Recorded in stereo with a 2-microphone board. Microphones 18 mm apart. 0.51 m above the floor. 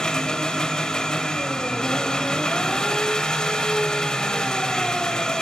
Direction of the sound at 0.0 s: 40° left (ahead or behind).